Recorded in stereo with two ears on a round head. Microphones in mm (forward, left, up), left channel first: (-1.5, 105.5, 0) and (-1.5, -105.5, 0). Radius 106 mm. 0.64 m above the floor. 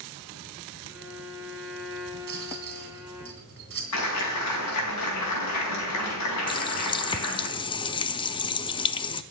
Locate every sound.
0.9 s a violin: 5° right (ahead or behind), 7 m
2.3 s a rattle: 45° right (ahead or behind), 3 m
3.9 s a clap: 80° left, 4.5 m
6.5 s a running tap: 20° left (ahead or behind), 0.6 m